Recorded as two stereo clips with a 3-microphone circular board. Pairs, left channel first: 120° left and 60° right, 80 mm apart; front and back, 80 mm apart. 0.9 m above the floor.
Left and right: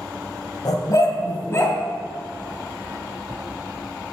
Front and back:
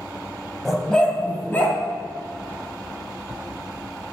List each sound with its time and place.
0.7 s a dog barking: 90° left, 1.4 m; by 1.8 s 60° left, 1.9 m